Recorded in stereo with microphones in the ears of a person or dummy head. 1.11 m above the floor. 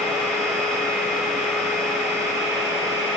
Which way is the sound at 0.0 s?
5° left (ahead or behind).